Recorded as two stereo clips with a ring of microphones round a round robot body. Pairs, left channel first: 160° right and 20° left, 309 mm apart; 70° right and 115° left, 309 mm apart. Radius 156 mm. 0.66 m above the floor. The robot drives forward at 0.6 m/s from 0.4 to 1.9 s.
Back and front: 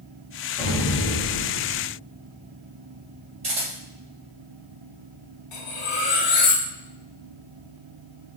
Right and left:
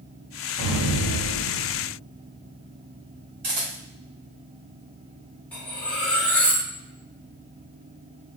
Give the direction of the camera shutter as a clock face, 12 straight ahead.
9 o'clock.